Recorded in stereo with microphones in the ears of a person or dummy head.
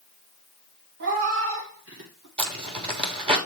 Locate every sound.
1.0 s a cat meowing: 60° right (ahead or behind), 1.6 m; by 2.3 s 65° right (ahead or behind), 3 m
2.4 s a zipper: 30° right (ahead or behind), 3 m